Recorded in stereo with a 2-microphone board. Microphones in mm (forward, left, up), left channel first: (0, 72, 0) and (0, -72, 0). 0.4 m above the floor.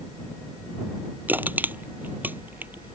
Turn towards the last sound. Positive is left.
turn(degrees=-10)  # may be behind; listen again after turning